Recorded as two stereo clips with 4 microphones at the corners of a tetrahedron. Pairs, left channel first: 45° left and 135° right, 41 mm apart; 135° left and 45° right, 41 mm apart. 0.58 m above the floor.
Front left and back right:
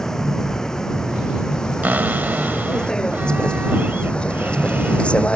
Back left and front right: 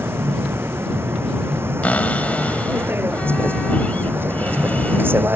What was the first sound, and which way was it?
A vehicle, 30° right.